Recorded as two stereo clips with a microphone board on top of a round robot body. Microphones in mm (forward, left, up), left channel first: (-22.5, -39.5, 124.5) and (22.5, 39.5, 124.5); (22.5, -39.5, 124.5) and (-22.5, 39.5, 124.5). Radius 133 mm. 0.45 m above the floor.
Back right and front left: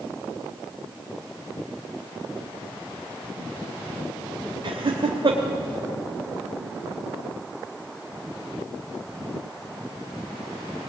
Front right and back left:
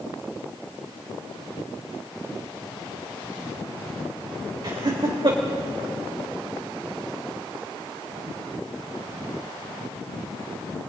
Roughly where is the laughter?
Left.